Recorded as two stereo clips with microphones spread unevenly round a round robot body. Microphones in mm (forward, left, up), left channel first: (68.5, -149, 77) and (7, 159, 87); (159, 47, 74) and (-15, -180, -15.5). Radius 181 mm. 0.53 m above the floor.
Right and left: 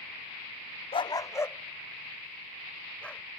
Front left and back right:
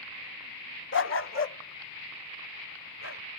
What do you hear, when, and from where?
0.9 s a dog barking: 5° right; by 3.3 s 10° left